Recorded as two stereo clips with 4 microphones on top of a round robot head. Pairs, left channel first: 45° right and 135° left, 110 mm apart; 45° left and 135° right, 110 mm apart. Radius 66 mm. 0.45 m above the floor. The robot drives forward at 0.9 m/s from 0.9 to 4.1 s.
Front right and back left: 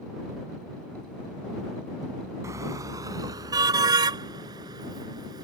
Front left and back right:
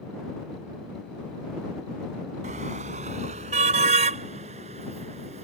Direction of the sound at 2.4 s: 160° right.